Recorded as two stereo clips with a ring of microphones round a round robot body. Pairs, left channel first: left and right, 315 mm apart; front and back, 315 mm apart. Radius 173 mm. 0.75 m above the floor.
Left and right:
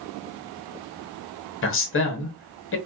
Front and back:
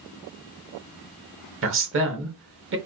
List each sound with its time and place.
1.6 s a woman speaking: 135° left, 1.0 m